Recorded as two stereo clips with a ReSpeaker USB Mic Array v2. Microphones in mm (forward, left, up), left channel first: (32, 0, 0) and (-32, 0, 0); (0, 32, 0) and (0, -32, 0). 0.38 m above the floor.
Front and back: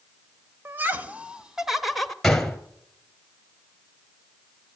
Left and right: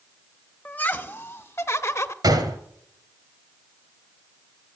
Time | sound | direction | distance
0.7 | laughter | 145° left | 1.2 m
2.2 | a gunshot | 85° right | 1.8 m